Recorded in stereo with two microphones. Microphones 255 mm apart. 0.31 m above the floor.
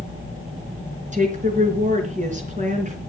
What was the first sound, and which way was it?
A woman speaking, 30° right (ahead or behind).